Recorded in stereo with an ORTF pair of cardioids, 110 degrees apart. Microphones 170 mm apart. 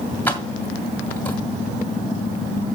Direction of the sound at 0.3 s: 10° left.